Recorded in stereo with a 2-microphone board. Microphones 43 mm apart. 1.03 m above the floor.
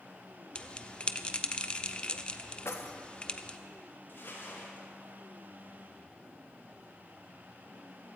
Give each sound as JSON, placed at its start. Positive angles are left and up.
{"t": 0.6, "sound": "a bell", "side_deg": 30, "distance_m": 0.7}
{"t": 2.6, "sound": "keys jangling", "side_deg": 85, "distance_m": 1.0}
{"t": 4.1, "sound": "crumpling", "side_deg": 55, "distance_m": 5.0}